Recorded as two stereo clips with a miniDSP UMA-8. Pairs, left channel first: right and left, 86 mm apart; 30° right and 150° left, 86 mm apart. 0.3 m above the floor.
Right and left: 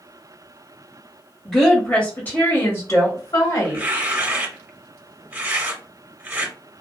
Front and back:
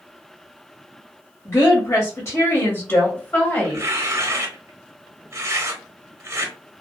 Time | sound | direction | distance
1.4 | a woman speaking | 10° right | 1.1 m
3.6 | tearing paper | 145° left | 0.6 m